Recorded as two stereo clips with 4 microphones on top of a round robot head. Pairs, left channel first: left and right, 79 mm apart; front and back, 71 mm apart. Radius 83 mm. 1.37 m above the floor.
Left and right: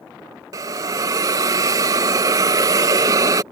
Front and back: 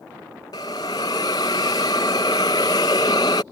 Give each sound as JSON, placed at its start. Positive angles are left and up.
{"t": 0.5, "sound": "a hiss", "azimuth_deg": -55}